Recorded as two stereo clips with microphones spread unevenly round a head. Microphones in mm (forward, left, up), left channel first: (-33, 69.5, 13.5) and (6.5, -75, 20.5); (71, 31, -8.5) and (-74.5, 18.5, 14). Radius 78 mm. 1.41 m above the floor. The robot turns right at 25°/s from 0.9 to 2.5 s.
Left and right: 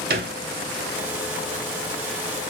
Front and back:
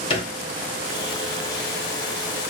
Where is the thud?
55° right, 1.5 m.